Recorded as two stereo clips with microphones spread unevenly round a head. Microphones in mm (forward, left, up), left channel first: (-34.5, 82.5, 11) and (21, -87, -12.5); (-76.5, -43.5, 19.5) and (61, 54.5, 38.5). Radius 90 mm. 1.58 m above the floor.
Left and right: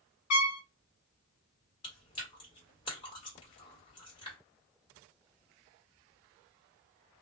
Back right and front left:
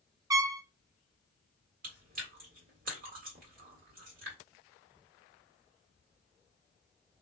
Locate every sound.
0.3 s a trumpet: 110° left, 0.7 m
1.8 s chewing: 55° left, 1.9 m